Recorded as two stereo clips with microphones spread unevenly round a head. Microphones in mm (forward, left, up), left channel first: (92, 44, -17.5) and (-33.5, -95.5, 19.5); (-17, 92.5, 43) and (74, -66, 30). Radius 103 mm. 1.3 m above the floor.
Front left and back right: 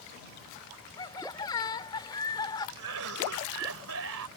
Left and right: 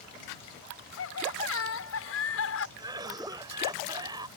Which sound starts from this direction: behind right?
A cough, at 2.8 s.